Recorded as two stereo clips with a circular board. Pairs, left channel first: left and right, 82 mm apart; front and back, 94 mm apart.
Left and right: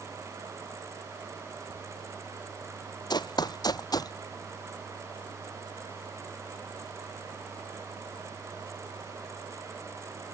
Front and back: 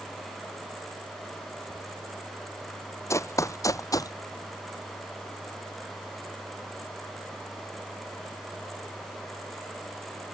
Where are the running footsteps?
60° left; by 4.1 s 50° left.